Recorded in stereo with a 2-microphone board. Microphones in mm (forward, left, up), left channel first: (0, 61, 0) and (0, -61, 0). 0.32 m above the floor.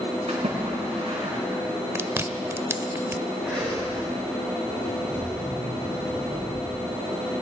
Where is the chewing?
20° right (ahead or behind), 0.5 m.